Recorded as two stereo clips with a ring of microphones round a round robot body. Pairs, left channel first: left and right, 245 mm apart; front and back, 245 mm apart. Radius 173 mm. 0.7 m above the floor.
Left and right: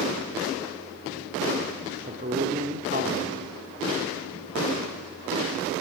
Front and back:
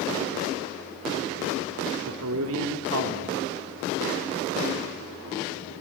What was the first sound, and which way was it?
A man speaking, 150° right.